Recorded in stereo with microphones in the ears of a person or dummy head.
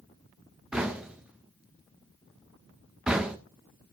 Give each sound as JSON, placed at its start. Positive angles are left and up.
{"t": 0.7, "sound": "knocking", "side_deg": -5, "distance_m": 0.6}